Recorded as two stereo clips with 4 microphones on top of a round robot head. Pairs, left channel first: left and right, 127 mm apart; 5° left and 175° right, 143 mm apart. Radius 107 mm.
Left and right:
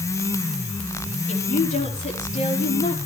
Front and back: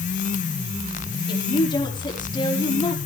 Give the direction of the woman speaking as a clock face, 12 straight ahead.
10 o'clock.